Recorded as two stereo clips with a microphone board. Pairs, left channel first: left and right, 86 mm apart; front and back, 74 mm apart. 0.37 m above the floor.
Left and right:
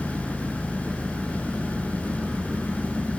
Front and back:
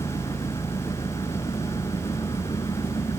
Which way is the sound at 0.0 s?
5° right.